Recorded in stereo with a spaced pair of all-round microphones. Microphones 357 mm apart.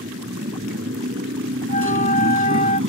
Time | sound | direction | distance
0.0 | a motorcycle | 35° right (ahead or behind) | ?
1.7 | a flute | 20° left (ahead or behind) | ?